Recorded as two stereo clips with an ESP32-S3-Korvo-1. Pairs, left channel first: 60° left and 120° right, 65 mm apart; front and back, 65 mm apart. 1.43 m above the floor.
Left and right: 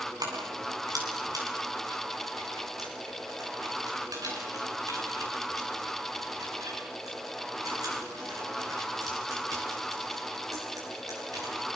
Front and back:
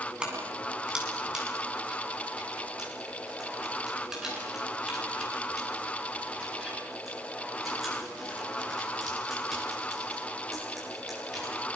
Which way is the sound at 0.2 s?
105° right.